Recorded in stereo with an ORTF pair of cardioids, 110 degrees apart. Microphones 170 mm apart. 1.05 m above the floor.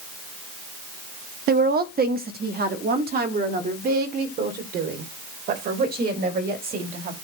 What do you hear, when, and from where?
1.5 s a woman speaking: 65° right, 0.9 m